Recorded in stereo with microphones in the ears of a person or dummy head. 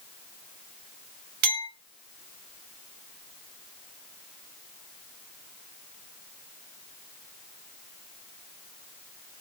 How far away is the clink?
About 1.5 m.